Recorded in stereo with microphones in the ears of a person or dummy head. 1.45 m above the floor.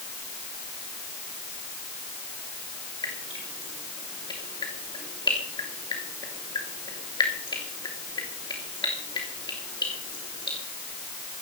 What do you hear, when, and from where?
3.0 s dripping: 25° left (ahead or behind), 3 m